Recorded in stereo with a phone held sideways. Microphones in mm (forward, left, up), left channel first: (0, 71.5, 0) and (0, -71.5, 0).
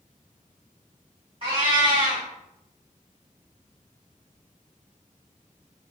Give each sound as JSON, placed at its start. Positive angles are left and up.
{"t": 1.4, "sound": "a cat meowing", "side_deg": -40, "distance_m": 1.9}